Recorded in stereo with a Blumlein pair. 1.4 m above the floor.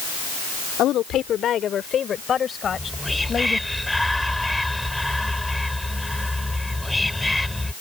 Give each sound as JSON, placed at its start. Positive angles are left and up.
{"t": 0.8, "sound": "a woman speaking", "azimuth_deg": 35}
{"t": 2.6, "sound": "whispering", "azimuth_deg": 5}